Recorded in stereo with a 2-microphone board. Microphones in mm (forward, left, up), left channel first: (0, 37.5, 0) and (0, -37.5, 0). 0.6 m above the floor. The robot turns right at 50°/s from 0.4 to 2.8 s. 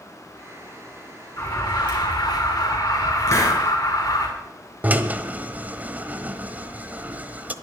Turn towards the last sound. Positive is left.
turn(degrees=-20)  # may be behind; listen again after turning